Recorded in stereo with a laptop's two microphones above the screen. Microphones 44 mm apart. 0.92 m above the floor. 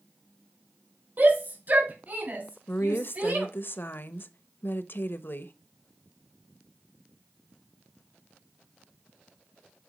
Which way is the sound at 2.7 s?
50° left (ahead or behind).